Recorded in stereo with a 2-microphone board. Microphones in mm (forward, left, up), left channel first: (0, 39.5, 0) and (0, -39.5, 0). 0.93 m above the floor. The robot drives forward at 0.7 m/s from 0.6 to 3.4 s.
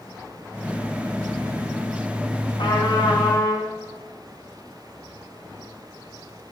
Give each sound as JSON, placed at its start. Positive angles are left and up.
{"t": 2.6, "sound": "a trumpet", "side_deg": 80, "distance_m": 1.5}